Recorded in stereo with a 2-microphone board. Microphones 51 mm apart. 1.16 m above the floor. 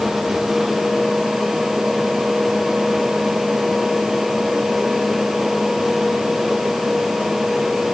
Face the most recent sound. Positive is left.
No sound to turn to.